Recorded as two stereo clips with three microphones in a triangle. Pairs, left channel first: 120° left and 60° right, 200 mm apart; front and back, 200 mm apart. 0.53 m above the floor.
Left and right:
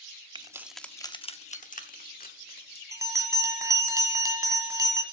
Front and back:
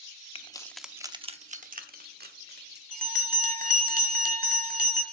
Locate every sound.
0.3 s keys jangling: 20° right, 0.6 m; by 2.8 s 155° left, 1.5 m
2.9 s a bell: 135° right, 1.5 m